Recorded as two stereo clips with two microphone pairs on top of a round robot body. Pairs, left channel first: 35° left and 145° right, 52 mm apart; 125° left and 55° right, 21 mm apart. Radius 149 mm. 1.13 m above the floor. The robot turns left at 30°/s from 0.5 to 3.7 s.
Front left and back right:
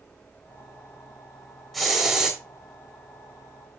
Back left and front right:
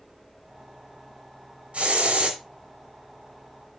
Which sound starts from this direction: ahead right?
A hiss, at 1.7 s.